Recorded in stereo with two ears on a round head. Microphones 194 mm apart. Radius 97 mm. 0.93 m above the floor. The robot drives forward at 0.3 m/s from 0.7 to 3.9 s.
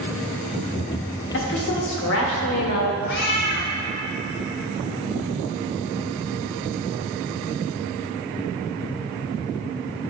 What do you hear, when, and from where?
1.3 s a woman speaking: 55° left (ahead or behind), 1.3 m; by 3.0 s 70° left (ahead or behind), 1.1 m
3.1 s a cat meowing: 55° left (ahead or behind), 1.3 m